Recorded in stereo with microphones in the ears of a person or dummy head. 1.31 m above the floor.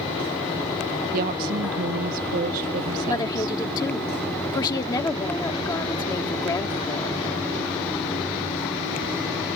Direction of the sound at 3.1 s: 20° left (ahead or behind).